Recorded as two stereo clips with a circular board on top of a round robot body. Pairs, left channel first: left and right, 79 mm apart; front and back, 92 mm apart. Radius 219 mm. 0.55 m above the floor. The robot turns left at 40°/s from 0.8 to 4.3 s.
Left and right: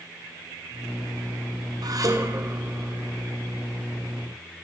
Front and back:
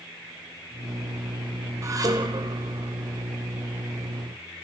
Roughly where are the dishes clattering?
Behind right.